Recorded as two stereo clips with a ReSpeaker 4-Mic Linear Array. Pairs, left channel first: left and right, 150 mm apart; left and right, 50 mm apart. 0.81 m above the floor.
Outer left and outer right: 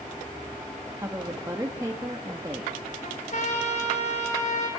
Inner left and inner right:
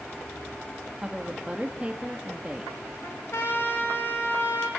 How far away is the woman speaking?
About 1.5 m.